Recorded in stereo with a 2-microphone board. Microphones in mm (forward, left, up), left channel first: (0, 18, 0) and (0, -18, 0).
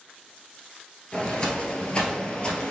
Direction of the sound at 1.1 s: 30° left (ahead or behind).